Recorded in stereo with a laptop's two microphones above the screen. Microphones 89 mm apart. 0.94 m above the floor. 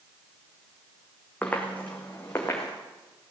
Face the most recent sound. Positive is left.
turn(degrees=30)  # may be behind; listen again after turning